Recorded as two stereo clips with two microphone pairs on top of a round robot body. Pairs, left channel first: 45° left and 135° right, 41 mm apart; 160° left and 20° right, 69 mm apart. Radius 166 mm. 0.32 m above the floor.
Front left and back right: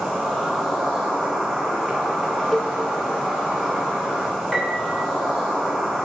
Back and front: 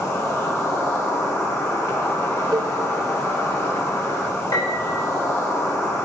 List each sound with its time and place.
0.0 s an insect: 145° left, 3 m
2.5 s a cowbell: 40° right, 1.0 m
4.5 s a piano: 140° left, 3.5 m